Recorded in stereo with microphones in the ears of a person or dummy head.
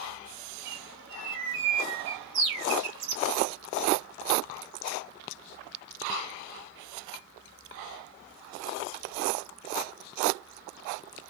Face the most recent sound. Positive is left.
turn(degrees=-55)  # may be behind; listen again after turning